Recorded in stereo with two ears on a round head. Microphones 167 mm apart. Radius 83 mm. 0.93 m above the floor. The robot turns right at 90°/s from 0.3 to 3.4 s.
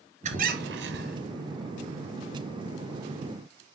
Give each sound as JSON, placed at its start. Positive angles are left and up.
{"t": 0.2, "sound": "a squeak", "azimuth_deg": -135, "distance_m": 2.0}